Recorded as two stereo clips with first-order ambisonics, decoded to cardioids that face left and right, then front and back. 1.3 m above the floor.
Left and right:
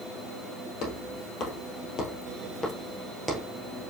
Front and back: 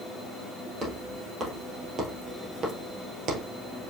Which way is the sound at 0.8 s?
115° left.